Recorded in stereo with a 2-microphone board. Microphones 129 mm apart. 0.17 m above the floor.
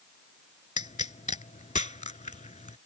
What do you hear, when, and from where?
0.8 s a pop: 70° left (ahead or behind)